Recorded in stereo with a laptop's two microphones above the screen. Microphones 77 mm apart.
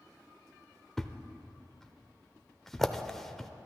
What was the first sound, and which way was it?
A thud, 5° left (ahead or behind).